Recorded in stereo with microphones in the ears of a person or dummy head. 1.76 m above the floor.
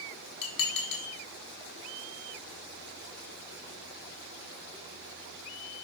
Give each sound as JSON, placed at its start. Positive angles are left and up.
{"t": 0.4, "sound": "dishes clattering", "side_deg": 60, "distance_m": 1.6}